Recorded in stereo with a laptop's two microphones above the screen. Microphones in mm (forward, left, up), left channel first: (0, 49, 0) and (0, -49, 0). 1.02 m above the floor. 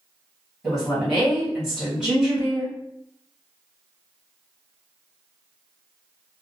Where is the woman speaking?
5° right (ahead or behind), 1.7 m.